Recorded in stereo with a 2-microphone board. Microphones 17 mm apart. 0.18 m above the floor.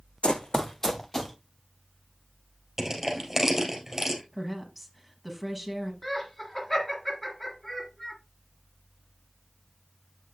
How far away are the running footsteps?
About 0.5 m.